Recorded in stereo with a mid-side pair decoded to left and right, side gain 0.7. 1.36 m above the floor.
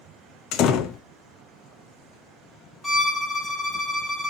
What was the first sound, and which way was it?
A door slam, 50° left.